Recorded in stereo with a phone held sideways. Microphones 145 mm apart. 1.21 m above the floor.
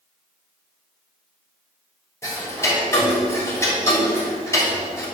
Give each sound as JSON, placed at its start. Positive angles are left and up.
{"t": 2.2, "sound": "ticking", "side_deg": 20, "distance_m": 3.5}